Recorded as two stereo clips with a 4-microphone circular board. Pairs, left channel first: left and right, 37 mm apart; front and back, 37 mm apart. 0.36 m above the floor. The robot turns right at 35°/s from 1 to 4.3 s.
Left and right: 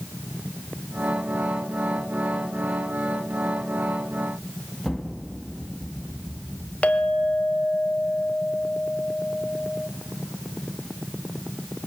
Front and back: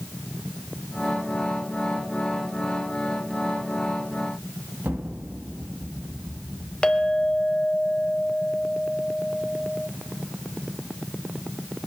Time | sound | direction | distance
4.8 | an explosion | straight behind | 2.0 m
6.8 | a clink | 55° left | 1.2 m